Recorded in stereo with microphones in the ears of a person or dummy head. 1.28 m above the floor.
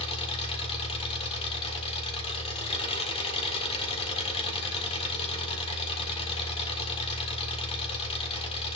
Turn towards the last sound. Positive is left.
turn(degrees=30)  # may be behind; listen again after turning